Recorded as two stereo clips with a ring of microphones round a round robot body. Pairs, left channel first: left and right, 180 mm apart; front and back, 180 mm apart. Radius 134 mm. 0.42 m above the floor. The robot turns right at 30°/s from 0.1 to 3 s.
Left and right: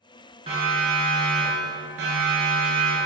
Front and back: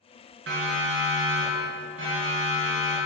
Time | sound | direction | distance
0.5 | a siren | 160° right | 5.5 m